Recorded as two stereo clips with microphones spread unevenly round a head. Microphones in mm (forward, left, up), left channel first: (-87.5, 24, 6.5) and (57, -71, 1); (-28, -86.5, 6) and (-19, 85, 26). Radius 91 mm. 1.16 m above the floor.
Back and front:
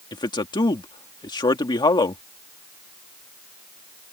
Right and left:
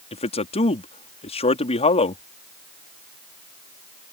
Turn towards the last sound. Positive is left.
turn(degrees=-150)